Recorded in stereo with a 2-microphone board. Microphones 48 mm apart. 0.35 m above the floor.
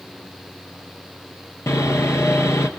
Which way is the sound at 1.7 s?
80° left.